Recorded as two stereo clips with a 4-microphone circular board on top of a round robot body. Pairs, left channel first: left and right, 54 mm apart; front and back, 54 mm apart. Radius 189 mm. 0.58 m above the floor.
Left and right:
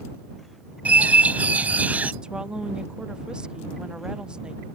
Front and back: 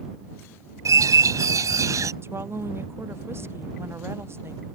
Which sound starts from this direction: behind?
A woman speaking, at 2.2 s.